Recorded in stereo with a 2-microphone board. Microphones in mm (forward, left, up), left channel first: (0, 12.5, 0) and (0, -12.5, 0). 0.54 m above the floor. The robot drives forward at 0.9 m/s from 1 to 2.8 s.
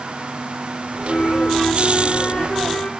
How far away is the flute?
About 2.0 m.